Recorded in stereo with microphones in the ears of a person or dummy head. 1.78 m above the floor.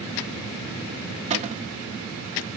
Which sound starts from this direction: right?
A cupboard door, at 1.3 s.